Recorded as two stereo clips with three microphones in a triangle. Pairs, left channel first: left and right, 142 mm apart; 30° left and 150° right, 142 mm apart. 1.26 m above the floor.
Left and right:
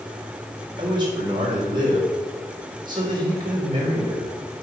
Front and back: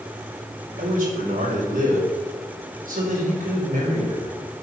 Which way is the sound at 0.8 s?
145° right.